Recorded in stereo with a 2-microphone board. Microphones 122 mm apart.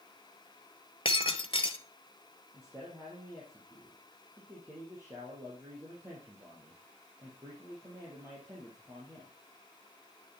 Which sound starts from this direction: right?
A man speaking, at 2.5 s.